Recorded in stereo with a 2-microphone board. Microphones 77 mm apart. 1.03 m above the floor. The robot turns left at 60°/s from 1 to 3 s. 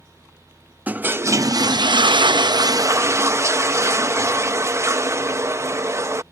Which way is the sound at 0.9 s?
20° right.